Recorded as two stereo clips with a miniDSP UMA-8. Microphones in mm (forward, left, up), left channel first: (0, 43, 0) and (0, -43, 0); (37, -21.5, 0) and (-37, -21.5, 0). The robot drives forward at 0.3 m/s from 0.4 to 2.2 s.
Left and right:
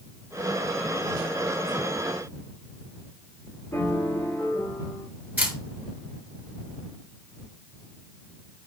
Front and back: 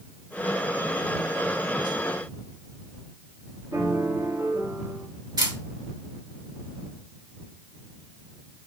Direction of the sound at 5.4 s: 160° right.